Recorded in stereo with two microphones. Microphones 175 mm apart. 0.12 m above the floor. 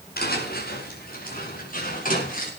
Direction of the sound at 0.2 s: 60° left (ahead or behind).